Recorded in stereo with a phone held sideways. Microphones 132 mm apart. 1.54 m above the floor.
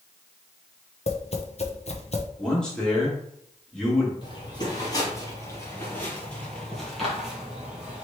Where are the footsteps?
35° left (ahead or behind), 1.9 m; by 8.0 s 10° right (ahead or behind), 2 m.